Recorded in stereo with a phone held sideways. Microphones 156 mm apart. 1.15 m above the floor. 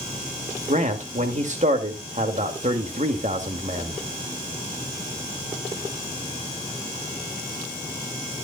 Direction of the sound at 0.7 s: 50° right (ahead or behind).